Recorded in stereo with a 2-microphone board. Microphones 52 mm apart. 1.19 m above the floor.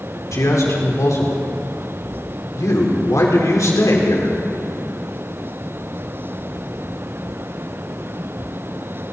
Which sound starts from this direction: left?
A man speaking, at 0.3 s.